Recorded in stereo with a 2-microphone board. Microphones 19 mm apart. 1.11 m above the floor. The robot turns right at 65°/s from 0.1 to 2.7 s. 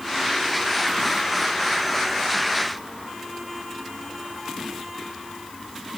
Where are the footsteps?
No footsteps in this recording.